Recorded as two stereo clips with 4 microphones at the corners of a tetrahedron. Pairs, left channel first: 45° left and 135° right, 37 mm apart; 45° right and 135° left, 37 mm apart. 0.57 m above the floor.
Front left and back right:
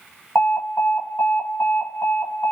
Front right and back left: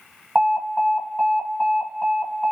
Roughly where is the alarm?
Ahead left.